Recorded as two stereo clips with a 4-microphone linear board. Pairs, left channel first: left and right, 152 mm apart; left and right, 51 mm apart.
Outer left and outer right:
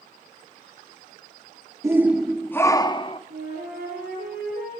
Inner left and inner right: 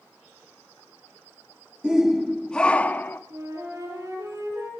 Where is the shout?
20° right (ahead or behind), 0.7 m; by 3.2 s 40° left (ahead or behind), 0.9 m.